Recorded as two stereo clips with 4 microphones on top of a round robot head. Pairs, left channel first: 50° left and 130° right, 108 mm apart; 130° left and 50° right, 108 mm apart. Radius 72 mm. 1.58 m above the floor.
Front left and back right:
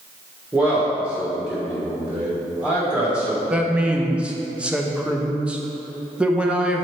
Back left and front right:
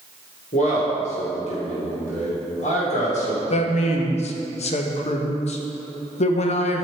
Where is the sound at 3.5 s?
150° left, 0.8 m.